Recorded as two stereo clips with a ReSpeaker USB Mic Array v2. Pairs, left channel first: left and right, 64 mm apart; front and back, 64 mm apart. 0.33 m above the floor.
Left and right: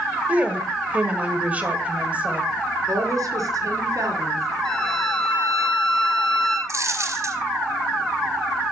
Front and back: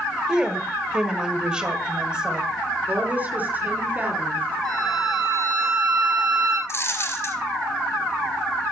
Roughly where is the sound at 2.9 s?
Behind right.